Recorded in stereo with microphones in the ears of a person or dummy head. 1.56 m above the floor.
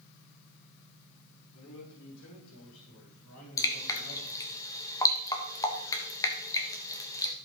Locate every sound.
1.5 s a man speaking: 75° left (ahead or behind), 3.5 m
3.6 s dripping: 15° left (ahead or behind), 1.5 m